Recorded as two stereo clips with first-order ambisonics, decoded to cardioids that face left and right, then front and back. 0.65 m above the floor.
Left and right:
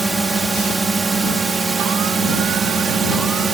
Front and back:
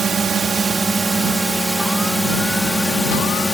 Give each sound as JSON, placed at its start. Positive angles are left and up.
{"t": 0.0, "sound": "a drone", "azimuth_deg": -150}